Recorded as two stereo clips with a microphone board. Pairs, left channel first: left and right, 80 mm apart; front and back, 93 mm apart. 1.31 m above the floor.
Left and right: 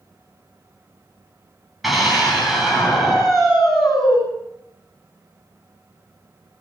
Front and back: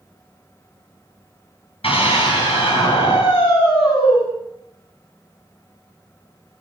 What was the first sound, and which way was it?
A scream, 5° right.